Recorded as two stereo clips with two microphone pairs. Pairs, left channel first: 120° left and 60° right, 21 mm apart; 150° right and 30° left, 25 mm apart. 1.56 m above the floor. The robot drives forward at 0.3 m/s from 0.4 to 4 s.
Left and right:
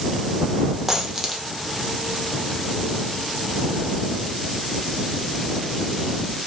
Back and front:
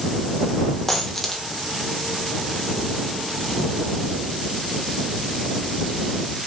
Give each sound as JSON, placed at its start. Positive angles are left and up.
{"t": 0.9, "sound": "a dropped coin", "azimuth_deg": -90, "distance_m": 1.2}